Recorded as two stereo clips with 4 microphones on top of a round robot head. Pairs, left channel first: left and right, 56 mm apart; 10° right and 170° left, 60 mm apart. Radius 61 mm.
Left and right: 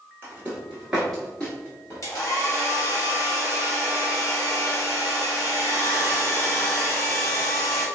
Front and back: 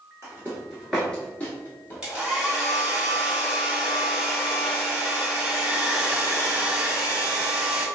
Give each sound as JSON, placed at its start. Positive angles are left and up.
{"t": 0.2, "sound": "footsteps", "azimuth_deg": -135, "distance_m": 0.8}
{"t": 2.0, "sound": "a hair dryer", "azimuth_deg": 95, "distance_m": 1.6}